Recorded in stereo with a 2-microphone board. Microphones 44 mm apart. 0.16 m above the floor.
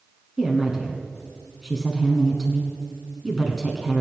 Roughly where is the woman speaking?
Centre.